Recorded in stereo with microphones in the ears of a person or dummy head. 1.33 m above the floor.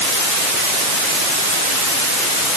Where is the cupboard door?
No cupboard door in this recording.